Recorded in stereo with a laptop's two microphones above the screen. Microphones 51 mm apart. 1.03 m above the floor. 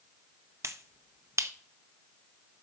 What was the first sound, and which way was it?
A finger snap, 65° right (ahead or behind).